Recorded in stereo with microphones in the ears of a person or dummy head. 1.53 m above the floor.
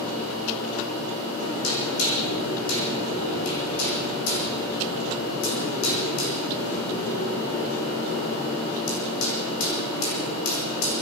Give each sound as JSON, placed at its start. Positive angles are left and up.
{"t": 1.4, "sound": "knocking", "side_deg": 90, "distance_m": 8.5}